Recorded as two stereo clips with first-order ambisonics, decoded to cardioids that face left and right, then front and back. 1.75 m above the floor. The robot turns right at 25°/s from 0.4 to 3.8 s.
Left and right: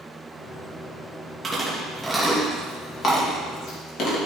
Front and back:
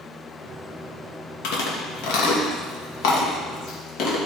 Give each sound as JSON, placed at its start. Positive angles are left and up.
{"t": 1.4, "sound": "chewing", "azimuth_deg": -15, "distance_m": 2.5}